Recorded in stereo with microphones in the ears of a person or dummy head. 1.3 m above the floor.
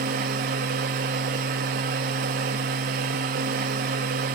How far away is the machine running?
About 0.8 m.